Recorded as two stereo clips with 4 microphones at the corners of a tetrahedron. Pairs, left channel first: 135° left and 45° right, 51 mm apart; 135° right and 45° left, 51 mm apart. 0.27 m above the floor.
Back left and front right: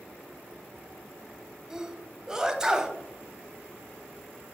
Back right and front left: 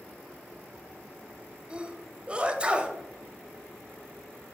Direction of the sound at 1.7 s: 15° left.